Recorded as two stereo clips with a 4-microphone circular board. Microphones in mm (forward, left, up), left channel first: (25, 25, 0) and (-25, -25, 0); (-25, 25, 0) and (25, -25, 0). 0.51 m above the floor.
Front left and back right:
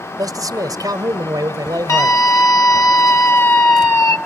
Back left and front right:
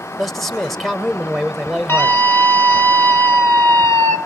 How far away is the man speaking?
About 1.7 m.